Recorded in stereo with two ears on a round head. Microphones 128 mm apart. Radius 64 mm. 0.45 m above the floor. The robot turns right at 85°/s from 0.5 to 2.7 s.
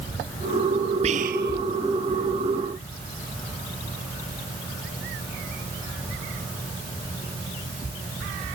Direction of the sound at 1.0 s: 45° right (ahead or behind).